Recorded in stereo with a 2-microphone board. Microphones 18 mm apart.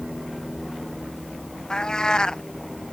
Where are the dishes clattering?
No dishes clattering in this recording.